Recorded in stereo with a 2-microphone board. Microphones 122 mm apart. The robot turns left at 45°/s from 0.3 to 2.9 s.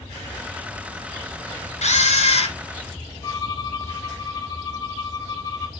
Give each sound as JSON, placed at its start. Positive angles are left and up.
{"t": 1.8, "sound": "a camera shutter", "azimuth_deg": 95, "distance_m": 1.5}
{"t": 3.2, "sound": "a violin", "side_deg": 30, "distance_m": 1.5}